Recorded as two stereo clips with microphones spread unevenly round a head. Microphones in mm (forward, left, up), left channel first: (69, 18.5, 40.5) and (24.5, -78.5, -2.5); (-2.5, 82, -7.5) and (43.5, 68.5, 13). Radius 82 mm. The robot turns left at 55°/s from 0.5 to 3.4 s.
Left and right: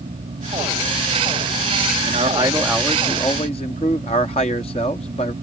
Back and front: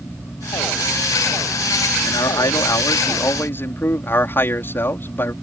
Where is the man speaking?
165° right; by 5.3 s 125° left.